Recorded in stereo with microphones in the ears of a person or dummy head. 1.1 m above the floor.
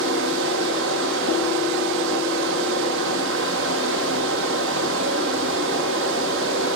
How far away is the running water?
About 1.4 m.